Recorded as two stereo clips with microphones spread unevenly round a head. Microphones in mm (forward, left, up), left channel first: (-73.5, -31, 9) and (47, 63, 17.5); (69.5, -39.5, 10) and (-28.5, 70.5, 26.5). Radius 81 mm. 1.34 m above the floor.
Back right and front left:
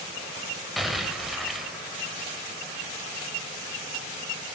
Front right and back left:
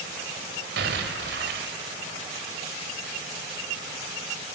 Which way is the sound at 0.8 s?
125° left.